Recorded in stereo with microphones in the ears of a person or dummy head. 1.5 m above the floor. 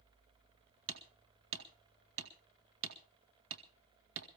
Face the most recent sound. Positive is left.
turn(degrees=-80)